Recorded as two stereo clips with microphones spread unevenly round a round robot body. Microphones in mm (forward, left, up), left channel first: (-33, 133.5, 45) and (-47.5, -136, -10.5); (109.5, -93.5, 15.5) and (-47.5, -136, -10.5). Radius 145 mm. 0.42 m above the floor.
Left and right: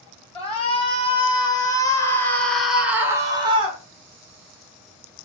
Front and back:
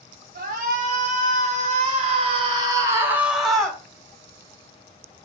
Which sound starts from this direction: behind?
A shout, at 0.3 s.